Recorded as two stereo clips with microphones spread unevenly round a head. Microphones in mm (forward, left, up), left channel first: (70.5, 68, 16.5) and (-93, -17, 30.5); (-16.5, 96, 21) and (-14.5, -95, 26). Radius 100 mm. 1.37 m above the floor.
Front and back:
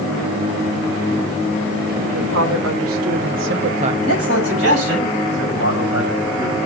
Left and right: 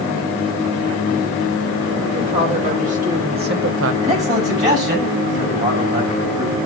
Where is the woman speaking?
150° right, 3 m; by 3.9 s 85° right, 0.7 m.